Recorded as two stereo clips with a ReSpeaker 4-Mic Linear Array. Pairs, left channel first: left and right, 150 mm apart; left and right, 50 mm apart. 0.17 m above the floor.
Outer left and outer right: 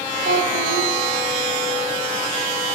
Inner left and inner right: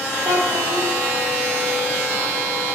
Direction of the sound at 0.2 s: 75° right (ahead or behind).